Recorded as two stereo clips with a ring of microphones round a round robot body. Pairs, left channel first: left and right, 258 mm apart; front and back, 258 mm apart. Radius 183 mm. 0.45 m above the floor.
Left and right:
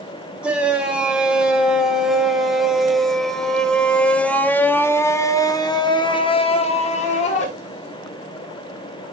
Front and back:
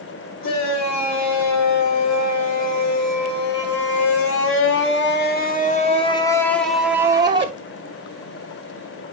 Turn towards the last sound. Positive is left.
turn(degrees=130)